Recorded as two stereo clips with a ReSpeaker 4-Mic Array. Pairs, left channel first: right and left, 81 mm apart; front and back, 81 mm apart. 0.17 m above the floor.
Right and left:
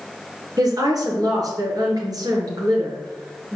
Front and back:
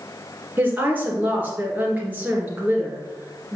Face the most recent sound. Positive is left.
turn(degrees=115)